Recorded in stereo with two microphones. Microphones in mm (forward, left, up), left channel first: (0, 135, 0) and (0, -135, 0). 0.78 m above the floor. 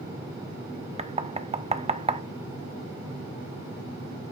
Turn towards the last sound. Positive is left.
turn(degrees=-25)  # may be behind; listen again after turning